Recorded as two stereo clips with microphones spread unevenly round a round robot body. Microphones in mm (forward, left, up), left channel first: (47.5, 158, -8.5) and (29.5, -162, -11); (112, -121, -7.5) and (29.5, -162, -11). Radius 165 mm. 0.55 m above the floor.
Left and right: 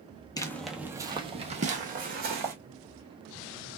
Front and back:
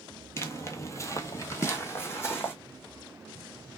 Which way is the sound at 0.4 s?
20° left.